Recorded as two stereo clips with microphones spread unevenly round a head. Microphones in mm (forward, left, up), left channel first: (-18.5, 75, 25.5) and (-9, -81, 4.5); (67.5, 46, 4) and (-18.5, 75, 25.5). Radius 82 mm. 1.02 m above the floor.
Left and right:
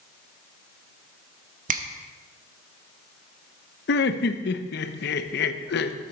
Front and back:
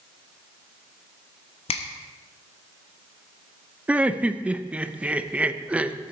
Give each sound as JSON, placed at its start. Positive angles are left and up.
{"t": 1.7, "sound": "a finger snap", "azimuth_deg": -45, "distance_m": 0.9}
{"t": 3.9, "sound": "laughter", "azimuth_deg": 80, "distance_m": 0.9}